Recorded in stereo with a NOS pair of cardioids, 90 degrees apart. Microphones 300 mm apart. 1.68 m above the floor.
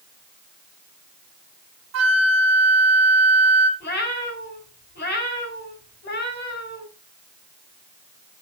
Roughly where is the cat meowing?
Ahead left.